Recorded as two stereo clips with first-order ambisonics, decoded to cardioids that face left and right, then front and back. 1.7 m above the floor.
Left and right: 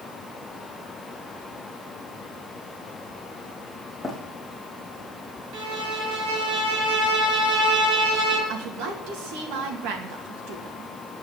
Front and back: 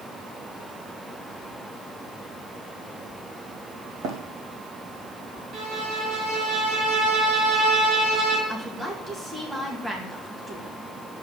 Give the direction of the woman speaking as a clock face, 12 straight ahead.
3 o'clock.